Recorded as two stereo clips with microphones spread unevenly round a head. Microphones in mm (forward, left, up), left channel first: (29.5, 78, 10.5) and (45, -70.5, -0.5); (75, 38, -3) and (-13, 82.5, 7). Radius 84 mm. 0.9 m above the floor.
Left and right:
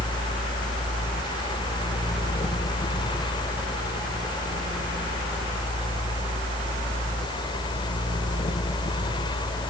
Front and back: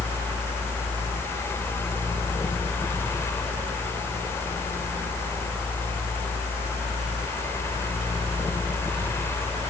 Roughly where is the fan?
Ahead left.